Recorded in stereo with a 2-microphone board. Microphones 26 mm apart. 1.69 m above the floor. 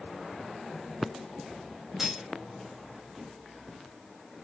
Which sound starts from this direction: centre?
Cutlery clinking, at 2.0 s.